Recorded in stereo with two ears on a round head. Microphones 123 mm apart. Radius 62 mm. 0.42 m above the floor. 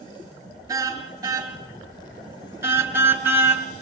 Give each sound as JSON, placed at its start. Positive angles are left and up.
{"t": 0.7, "sound": "a car horn", "side_deg": -25, "distance_m": 4.5}